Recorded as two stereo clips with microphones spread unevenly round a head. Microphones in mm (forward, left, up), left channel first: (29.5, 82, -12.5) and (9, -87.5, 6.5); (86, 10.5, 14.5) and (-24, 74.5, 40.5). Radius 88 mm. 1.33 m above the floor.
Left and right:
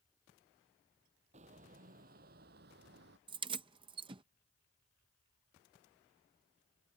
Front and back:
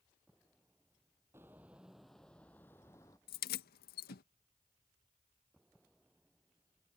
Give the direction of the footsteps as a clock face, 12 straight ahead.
5 o'clock.